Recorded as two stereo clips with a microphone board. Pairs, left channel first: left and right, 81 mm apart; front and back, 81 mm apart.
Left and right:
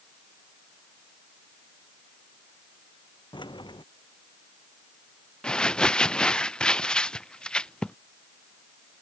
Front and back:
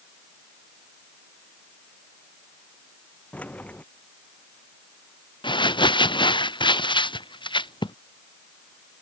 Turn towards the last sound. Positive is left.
turn(degrees=10)